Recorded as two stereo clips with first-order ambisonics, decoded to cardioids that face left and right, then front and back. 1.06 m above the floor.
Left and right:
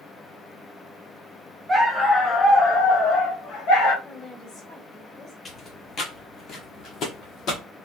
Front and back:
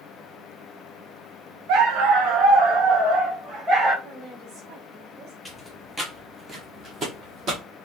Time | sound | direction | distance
1.7 | a dog barking | 170° right | 0.8 m
4.0 | a woman speaking | 155° left | 2 m
5.5 | footsteps | 75° left | 1.1 m